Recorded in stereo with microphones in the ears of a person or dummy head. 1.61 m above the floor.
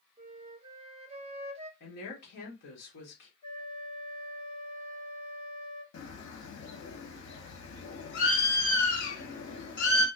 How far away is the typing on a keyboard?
I don't hear typing on a keyboard.